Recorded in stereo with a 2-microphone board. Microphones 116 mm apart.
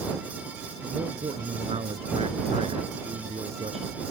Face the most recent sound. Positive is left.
turn(degrees=-60)  # may be behind; listen again after turning